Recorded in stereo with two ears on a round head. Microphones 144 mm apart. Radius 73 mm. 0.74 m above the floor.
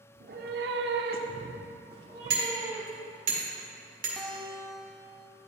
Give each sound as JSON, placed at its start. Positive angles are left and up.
{"t": 0.1, "sound": "a cat meowing", "side_deg": -45, "distance_m": 0.7}
{"t": 2.3, "sound": "hammering", "side_deg": -50, "distance_m": 1.9}
{"t": 4.2, "sound": "a guitar", "side_deg": 5, "distance_m": 0.7}